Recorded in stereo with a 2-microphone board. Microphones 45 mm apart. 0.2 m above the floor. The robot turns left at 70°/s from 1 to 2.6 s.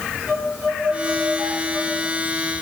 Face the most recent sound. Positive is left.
turn(degrees=-145)